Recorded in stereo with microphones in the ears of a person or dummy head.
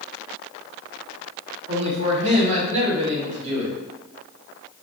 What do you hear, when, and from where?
1.7 s a man speaking: 45° right (ahead or behind), 1.1 m